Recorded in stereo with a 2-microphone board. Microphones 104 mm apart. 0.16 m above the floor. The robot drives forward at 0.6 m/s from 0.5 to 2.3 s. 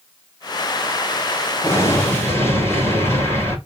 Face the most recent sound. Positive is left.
turn(degrees=25)  # may be behind; listen again after turning